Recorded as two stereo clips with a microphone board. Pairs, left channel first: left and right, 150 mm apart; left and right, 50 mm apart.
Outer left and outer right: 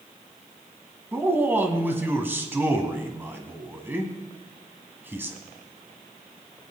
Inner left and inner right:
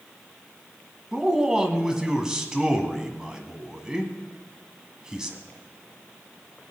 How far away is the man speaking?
About 1.4 m.